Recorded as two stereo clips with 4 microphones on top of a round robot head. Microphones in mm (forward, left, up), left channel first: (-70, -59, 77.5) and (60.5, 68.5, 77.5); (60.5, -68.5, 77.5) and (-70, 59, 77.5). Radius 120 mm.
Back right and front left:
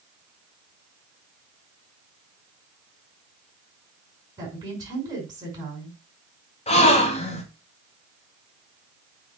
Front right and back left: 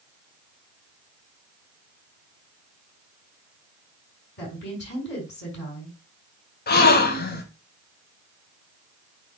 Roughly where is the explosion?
I don't hear an explosion.